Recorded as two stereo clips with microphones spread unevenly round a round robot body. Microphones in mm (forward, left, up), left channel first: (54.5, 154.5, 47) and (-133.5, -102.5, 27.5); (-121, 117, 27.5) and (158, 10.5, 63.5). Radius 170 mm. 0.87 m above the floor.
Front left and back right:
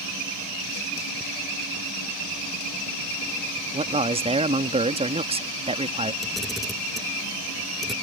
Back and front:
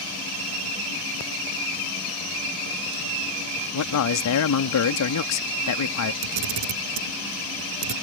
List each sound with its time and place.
3.7 s a man speaking: 165° left
6.2 s a camera shutter: 35° right